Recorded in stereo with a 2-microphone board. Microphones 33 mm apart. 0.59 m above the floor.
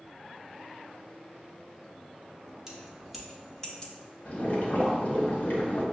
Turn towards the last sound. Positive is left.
turn(degrees=55)  # may be behind; listen again after turning